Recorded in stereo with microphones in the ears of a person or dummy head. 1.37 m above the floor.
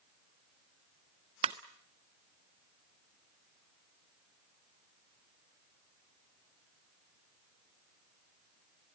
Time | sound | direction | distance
1.4 | a ringtone | 25° right (ahead or behind) | 0.6 m